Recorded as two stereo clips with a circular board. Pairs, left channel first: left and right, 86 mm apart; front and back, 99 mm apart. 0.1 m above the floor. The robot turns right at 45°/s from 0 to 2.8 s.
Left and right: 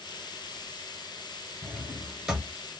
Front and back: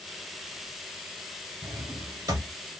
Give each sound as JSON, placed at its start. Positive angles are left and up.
{"t": 1.6, "sound": "a drawer", "azimuth_deg": 155, "distance_m": 1.0}